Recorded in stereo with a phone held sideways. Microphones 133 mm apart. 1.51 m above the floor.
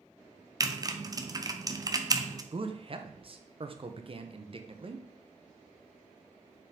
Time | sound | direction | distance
0.6 | typing on a keyboard | 30° right (ahead or behind) | 0.6 m
2.5 | a man speaking | 45° right (ahead or behind) | 0.7 m